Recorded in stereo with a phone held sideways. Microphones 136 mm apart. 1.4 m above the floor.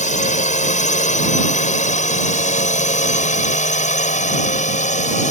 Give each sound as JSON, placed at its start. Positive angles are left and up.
{"t": 0.0, "sound": "a drone", "side_deg": 60}